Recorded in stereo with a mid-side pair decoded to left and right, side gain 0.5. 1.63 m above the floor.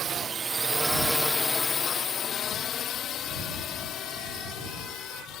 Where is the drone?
50° right; by 5.4 s 75° left.